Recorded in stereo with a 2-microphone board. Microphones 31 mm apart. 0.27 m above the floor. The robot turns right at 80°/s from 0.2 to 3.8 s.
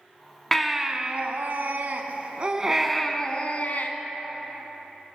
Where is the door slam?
No door slam in this recording.